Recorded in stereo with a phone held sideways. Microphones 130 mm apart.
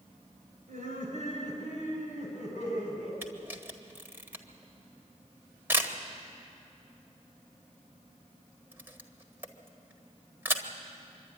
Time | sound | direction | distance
0.7 | laughter | 65° right (ahead or behind) | 6.5 m
3.2 | a camera shutter | 15° right (ahead or behind) | 1.5 m